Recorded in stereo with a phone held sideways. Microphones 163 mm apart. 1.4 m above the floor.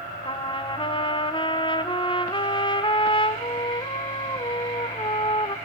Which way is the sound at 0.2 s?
30° left (ahead or behind).